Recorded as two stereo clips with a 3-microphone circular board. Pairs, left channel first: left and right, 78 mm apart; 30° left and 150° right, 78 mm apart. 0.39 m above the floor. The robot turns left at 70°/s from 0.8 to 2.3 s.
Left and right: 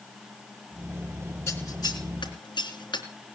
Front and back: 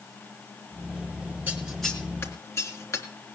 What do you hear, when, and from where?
1.5 s scissors: 145° left, 3.5 m; by 3.0 s 85° left, 3.5 m